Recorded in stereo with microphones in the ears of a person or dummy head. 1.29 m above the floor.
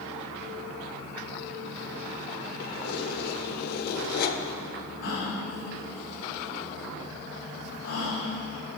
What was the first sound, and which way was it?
Keys jangling, 60° left (ahead or behind).